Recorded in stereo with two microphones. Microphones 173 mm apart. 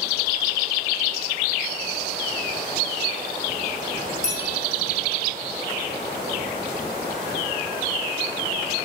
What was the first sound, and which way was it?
A bell, 40° right (ahead or behind).